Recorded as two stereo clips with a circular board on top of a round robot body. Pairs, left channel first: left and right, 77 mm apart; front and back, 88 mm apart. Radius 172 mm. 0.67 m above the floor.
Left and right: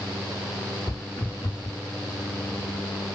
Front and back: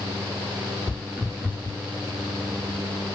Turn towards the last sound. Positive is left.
turn(degrees=100)